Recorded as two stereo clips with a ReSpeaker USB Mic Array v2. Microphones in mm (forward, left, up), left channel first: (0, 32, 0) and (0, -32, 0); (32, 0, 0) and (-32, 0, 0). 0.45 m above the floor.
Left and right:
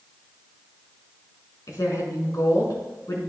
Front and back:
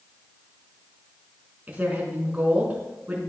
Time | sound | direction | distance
1.7 | a woman speaking | 115° left | 5 m